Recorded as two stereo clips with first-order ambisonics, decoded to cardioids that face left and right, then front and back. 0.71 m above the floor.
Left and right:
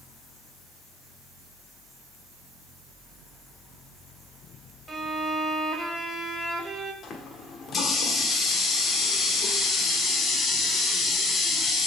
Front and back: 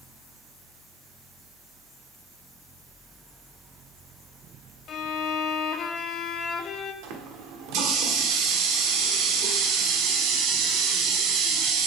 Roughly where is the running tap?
Behind left.